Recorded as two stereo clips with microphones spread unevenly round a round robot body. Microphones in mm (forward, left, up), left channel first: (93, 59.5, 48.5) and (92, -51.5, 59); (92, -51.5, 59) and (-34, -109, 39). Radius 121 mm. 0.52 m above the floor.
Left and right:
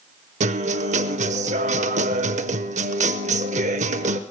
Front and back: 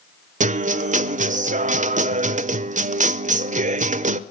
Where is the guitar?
120° right, 0.6 m.